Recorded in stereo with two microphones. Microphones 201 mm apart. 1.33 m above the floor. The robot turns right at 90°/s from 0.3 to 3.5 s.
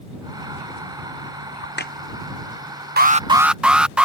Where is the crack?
65° left (ahead or behind); by 1.9 s 45° left (ahead or behind).